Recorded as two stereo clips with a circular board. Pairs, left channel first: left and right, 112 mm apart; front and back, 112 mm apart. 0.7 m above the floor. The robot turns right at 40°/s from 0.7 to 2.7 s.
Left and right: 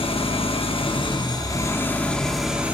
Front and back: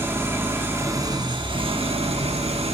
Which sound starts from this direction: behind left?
An engine running, at 0.0 s.